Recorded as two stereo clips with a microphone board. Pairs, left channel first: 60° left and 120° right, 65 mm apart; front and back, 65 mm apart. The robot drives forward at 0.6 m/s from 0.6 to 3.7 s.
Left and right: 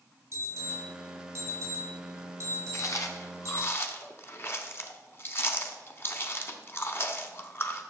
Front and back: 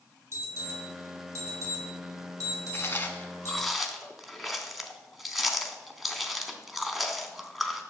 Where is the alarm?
145° right, 3 m; by 3.7 s 160° right, 5 m.